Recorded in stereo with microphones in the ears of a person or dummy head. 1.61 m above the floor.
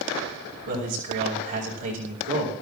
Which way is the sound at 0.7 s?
60° right (ahead or behind).